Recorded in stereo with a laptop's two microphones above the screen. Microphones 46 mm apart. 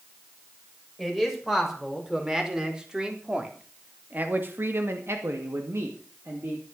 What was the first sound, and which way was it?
A man speaking, 5° right (ahead or behind).